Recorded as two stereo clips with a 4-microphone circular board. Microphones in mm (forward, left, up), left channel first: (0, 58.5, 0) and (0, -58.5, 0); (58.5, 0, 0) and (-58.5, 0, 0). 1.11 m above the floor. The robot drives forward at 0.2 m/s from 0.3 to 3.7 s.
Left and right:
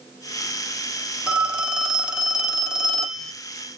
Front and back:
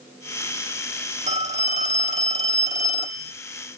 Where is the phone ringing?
170° right, 0.6 m; by 3.3 s 175° right, 1.0 m.